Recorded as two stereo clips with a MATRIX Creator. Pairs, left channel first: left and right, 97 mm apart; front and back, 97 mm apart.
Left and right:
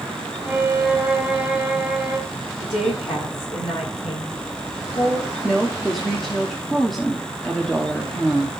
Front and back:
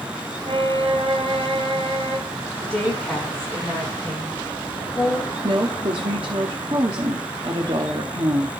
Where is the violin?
165° right, 1.6 m.